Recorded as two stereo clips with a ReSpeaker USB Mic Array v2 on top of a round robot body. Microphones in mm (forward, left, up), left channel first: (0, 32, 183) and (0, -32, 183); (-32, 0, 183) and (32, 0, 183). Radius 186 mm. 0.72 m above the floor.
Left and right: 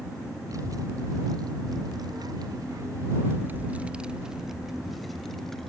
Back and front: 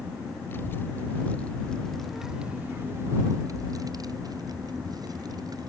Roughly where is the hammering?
No hammering in this recording.